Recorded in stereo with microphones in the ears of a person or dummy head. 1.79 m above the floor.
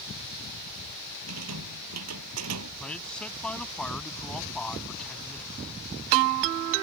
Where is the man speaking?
5° left (ahead or behind).